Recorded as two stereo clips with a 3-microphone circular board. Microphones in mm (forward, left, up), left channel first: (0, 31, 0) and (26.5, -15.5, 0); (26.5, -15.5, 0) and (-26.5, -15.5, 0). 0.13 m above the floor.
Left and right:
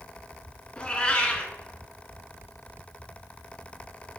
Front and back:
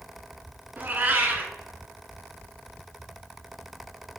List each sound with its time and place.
0.8 s a cat meowing: 170° left, 0.7 m